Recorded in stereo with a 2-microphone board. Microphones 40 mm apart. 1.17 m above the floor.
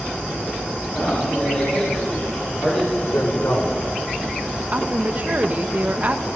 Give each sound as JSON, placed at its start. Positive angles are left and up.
{"t": 0.9, "sound": "a man speaking", "side_deg": 45, "distance_m": 6.5}
{"t": 3.0, "sound": "a man speaking", "side_deg": 80, "distance_m": 4.5}
{"t": 4.7, "sound": "a woman speaking", "side_deg": -40, "distance_m": 1.1}